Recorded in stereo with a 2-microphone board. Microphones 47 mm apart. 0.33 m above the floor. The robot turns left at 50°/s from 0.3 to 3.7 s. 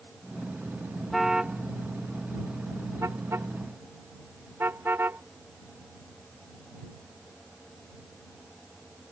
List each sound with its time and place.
1.1 s a car horn: centre (ahead or behind); by 5.2 s 50° right (ahead or behind)